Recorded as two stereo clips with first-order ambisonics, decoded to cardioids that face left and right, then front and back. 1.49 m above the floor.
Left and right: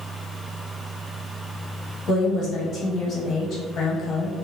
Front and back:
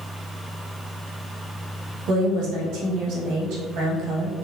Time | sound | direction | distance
2.1 | a woman speaking | 145° left | 0.8 m